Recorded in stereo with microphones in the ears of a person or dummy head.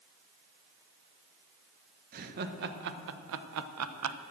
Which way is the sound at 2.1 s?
45° right (ahead or behind).